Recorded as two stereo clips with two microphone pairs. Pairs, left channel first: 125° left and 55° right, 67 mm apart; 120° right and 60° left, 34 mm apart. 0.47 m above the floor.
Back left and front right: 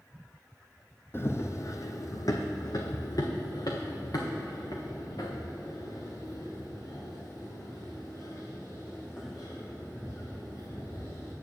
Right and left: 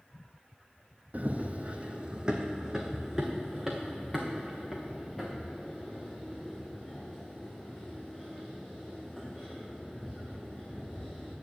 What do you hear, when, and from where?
1.1 s running footsteps: 80° left, 0.8 m; by 11.3 s 165° left, 5.5 m